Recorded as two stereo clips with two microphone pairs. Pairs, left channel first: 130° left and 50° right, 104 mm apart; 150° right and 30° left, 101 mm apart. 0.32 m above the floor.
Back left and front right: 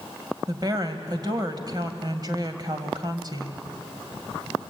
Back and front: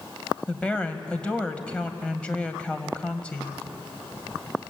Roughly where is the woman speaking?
Right.